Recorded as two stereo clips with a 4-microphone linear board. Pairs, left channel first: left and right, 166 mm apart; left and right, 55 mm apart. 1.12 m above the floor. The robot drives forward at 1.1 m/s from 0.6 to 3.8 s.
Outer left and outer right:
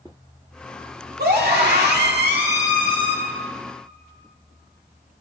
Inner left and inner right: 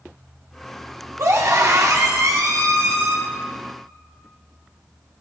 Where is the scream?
75° right (ahead or behind), 2.5 m; by 3.2 s 60° right (ahead or behind), 3 m.